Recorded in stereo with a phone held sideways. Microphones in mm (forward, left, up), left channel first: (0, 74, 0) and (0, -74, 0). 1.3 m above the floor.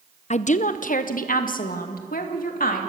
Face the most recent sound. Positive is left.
turn(degrees=75)  # may be behind; listen again after turning